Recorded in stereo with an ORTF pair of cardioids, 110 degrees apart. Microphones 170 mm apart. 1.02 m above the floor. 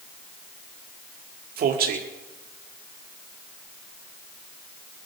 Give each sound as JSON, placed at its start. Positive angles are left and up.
{"t": 1.6, "sound": "a man speaking", "azimuth_deg": -60, "distance_m": 2.0}